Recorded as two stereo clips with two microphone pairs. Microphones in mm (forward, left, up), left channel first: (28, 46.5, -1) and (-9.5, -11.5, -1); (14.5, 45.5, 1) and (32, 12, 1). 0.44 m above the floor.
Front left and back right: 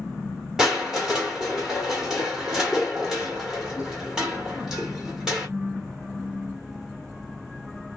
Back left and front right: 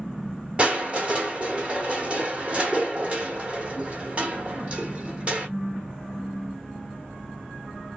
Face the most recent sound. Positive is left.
turn(degrees=-50)